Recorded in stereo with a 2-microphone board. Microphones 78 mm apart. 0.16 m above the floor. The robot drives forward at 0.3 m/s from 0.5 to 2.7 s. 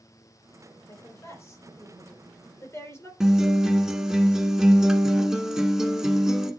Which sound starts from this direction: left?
A woman speaking, at 0.9 s.